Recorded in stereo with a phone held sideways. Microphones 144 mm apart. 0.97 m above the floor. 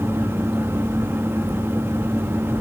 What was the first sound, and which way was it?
A fan, 15° right (ahead or behind).